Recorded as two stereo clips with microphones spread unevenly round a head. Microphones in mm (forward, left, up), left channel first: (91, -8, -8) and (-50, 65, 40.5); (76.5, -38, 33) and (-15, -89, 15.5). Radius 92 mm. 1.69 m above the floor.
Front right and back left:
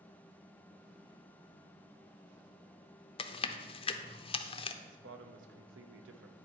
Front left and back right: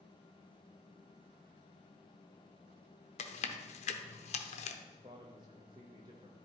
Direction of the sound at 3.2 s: 35° left.